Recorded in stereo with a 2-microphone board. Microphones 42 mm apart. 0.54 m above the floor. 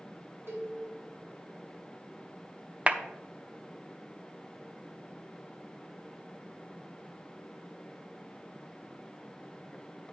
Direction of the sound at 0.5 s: 70° right (ahead or behind).